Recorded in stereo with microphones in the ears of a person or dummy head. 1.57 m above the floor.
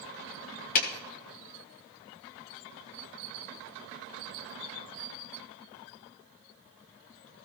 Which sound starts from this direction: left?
A clap, at 0.8 s.